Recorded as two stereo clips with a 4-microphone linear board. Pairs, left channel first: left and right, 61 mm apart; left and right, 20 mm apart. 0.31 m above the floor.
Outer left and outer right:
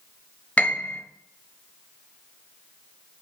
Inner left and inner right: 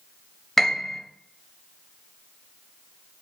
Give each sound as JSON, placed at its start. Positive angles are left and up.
{"t": 0.6, "sound": "a piano", "side_deg": 25, "distance_m": 0.8}